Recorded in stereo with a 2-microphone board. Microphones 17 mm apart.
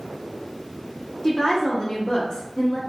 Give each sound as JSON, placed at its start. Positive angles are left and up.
{"t": 1.2, "sound": "a woman speaking", "side_deg": 45, "distance_m": 1.0}